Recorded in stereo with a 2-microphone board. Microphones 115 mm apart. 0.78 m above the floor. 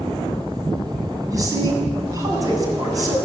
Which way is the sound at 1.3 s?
30° right (ahead or behind).